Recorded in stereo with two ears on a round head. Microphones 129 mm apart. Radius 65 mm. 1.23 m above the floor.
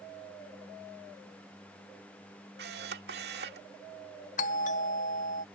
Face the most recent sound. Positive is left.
turn(degrees=55)  # may be behind; listen again after turning